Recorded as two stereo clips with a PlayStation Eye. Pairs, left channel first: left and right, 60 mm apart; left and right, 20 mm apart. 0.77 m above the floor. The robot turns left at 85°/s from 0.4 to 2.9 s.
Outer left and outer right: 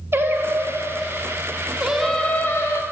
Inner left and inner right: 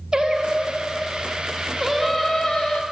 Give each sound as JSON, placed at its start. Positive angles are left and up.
{"t": 0.1, "sound": "singing", "azimuth_deg": -45, "distance_m": 0.6}